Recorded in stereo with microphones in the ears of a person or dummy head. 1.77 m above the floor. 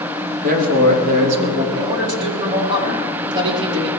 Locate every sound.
0.4 s a man speaking: 50° right (ahead or behind), 3 m; by 1.6 s 35° right (ahead or behind), 3 m
1.7 s a man speaking: 25° right (ahead or behind), 4.5 m